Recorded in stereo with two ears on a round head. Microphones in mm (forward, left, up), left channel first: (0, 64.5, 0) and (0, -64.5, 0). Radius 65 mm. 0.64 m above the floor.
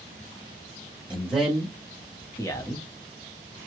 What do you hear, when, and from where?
1.1 s a man speaking: 10° right (ahead or behind), 1.0 m; by 2.9 s 20° left (ahead or behind), 1.0 m